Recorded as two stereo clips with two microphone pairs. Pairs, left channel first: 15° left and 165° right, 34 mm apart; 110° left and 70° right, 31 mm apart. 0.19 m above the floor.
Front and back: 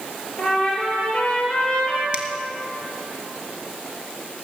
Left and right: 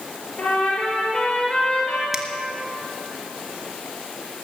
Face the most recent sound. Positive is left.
turn(degrees=-145)